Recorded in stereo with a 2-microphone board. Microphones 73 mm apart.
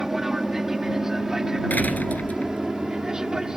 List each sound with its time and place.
0.0 s an aircraft: 5° right (ahead or behind); by 3.6 s 10° right (ahead or behind)
1.7 s a door slam: 20° left (ahead or behind)